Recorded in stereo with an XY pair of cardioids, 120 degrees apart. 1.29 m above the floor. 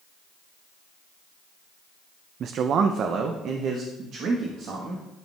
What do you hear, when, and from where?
2.4 s a man speaking: 55° right, 0.5 m